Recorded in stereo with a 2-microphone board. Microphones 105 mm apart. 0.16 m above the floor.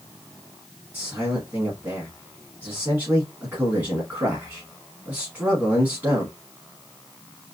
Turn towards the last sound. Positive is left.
turn(degrees=-20)  # may be behind; listen again after turning